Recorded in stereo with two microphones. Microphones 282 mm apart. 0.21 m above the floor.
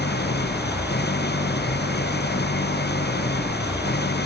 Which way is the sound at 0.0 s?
40° left (ahead or behind).